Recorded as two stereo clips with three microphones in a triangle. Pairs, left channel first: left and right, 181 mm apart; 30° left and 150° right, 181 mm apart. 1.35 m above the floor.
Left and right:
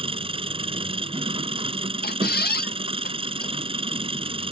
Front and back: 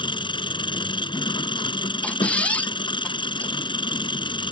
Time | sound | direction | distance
0.0 | an engine running | 35° right | ?
2.0 | a squeak | 110° left | ?